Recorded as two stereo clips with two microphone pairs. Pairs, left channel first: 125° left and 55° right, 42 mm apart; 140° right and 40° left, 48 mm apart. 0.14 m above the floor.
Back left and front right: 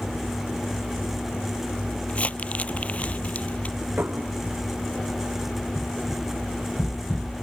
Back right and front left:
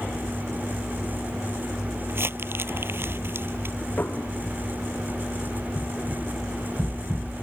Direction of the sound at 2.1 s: 75° left.